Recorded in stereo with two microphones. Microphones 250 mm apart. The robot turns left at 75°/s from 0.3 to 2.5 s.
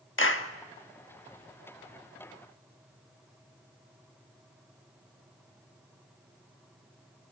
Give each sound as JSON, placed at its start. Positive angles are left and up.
{"t": 0.2, "sound": "a clap", "side_deg": 55, "distance_m": 1.3}